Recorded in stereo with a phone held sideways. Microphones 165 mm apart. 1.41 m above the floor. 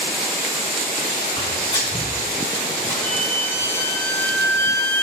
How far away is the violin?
About 1.3 m.